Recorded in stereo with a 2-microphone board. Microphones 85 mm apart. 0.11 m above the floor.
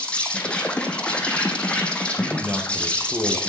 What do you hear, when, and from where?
0.0 s an insect: 15° left (ahead or behind), 1.7 m
2.2 s a man speaking: 25° right (ahead or behind), 2 m